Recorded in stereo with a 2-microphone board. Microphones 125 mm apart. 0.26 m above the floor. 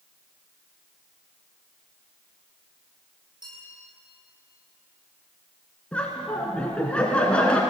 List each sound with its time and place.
3.4 s a bell: 35° right (ahead or behind), 8.5 m
5.9 s laughter: 10° left (ahead or behind), 2.5 m